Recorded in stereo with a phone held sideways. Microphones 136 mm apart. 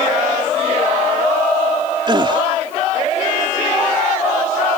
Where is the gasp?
35° right (ahead or behind).